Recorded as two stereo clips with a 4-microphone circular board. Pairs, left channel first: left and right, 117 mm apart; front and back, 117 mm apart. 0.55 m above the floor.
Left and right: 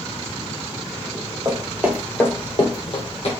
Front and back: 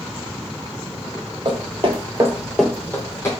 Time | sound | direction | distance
1.4 | footsteps | 150° right | 1.1 m